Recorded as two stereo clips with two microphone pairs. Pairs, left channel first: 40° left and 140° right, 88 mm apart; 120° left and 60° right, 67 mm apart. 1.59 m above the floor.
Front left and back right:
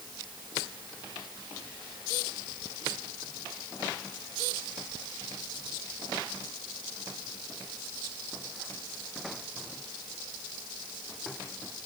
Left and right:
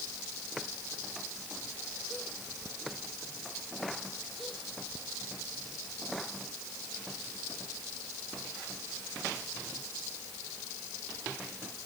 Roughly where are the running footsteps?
I don't hear running footsteps.